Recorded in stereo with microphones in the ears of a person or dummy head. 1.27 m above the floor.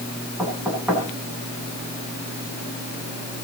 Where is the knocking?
10° right (ahead or behind), 8.5 m.